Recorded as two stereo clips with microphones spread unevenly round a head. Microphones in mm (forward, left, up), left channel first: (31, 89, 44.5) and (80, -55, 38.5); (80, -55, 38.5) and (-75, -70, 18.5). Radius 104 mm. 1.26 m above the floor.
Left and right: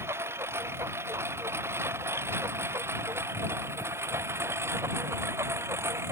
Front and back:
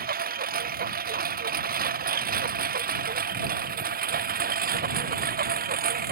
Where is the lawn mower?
150° right.